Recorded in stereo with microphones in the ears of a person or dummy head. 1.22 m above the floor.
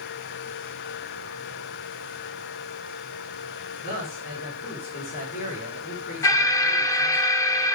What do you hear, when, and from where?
3.8 s a man speaking: 45° left (ahead or behind), 4 m
6.2 s an alarm: 20° left (ahead or behind), 0.9 m